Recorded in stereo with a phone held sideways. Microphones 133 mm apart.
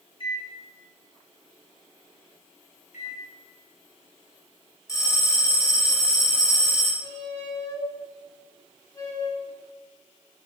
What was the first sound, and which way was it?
A microwave, 40° left (ahead or behind).